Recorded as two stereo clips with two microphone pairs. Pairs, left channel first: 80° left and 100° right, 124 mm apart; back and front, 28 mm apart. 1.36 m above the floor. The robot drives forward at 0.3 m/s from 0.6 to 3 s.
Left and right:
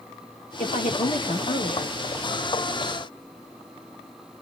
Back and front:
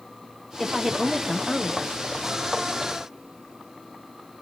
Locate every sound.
0.6 s a woman speaking: 75° left, 1.4 m; by 1.9 s 95° left, 1.3 m